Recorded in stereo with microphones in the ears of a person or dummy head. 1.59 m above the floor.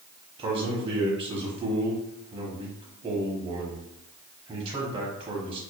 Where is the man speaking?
35° right (ahead or behind), 1.1 m.